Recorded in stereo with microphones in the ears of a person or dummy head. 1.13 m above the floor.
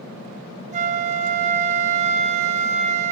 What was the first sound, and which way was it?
A flute, 30° right (ahead or behind).